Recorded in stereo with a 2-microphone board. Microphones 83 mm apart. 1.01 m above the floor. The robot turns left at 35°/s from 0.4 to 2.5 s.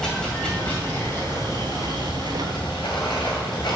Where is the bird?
I don't hear a bird.